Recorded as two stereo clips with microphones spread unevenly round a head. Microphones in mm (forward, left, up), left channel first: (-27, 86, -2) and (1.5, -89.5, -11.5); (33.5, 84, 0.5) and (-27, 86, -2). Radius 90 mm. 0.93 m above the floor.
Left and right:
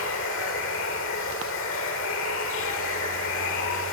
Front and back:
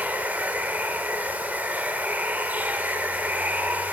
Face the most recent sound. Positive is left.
turn(degrees=115)